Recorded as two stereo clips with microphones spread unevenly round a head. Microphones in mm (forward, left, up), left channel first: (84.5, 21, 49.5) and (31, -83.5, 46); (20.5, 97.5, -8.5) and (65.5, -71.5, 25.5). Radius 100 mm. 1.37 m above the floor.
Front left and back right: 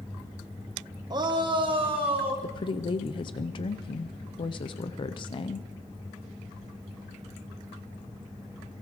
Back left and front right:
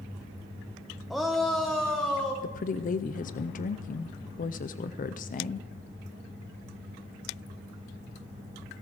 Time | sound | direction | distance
1.1 | a shout | 170° right | 0.9 m
2.4 | a woman speaking | 100° left | 0.5 m